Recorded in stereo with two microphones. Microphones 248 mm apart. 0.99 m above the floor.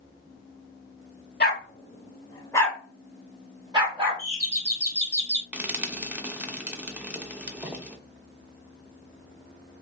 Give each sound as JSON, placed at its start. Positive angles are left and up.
{"t": 1.4, "sound": "a dog barking", "side_deg": 45, "distance_m": 1.0}
{"t": 4.2, "sound": "a doorbell", "side_deg": 10, "distance_m": 1.8}
{"t": 5.5, "sound": "frying", "side_deg": -5, "distance_m": 0.6}